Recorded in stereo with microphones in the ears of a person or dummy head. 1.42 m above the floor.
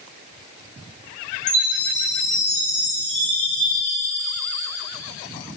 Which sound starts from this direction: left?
A chime, at 1.5 s.